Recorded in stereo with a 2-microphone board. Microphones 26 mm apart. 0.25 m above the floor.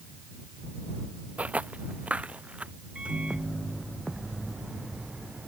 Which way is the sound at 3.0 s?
50° right (ahead or behind).